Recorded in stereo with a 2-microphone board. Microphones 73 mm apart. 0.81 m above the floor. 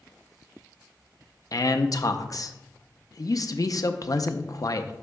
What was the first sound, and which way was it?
A man speaking, 50° left (ahead or behind).